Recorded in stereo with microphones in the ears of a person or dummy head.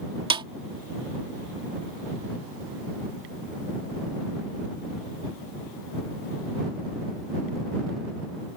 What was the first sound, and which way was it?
A snare drum, 25° right (ahead or behind).